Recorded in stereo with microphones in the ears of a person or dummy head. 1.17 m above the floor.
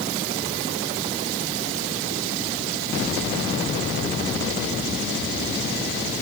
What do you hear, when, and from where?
Only background noise.